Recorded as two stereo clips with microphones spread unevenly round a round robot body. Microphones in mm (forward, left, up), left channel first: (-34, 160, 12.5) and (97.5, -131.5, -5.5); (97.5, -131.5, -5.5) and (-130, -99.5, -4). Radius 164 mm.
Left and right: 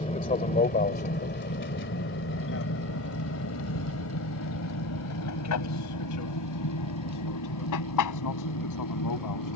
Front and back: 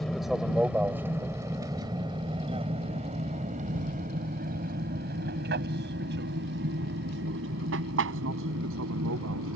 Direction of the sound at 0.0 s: 80° left.